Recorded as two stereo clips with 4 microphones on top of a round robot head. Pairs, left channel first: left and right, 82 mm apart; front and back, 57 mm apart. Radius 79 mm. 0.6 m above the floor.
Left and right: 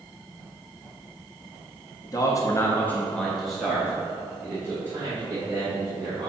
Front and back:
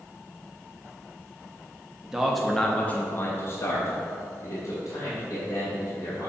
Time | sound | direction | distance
2.0 | a man speaking | 105° left | 1.0 m